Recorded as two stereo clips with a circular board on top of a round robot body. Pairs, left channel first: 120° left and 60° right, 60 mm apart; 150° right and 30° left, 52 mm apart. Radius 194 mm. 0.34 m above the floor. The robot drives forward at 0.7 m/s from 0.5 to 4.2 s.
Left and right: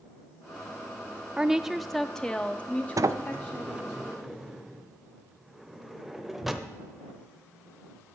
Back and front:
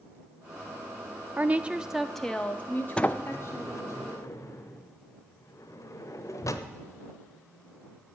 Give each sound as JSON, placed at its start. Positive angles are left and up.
{"t": 1.4, "sound": "a woman speaking", "azimuth_deg": 10, "distance_m": 0.9}
{"t": 3.0, "sound": "a sliding door", "azimuth_deg": -80, "distance_m": 0.6}